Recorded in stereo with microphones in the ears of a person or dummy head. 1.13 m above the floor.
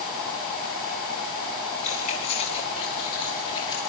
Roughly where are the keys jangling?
Left.